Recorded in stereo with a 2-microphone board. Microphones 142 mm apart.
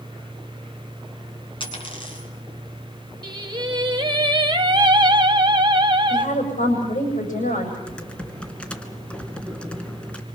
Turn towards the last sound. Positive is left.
turn(degrees=10)  # may be behind; listen again after turning